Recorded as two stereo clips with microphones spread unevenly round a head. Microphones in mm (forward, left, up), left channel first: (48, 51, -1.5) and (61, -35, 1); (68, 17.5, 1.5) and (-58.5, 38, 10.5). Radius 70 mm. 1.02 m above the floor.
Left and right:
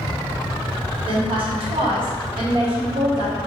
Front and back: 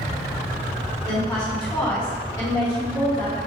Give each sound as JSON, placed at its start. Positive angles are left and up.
{"t": 1.1, "sound": "a woman speaking", "azimuth_deg": -70, "distance_m": 1.5}